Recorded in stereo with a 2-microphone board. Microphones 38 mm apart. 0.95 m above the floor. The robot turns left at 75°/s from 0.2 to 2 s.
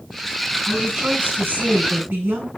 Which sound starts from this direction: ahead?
A woman speaking, at 0.7 s.